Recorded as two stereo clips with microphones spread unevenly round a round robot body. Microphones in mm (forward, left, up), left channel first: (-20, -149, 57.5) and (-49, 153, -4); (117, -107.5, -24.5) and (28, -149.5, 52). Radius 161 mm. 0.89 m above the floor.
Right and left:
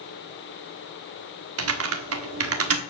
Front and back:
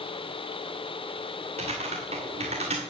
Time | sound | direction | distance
1.6 | typing on a keyboard | 140° left | 1.3 m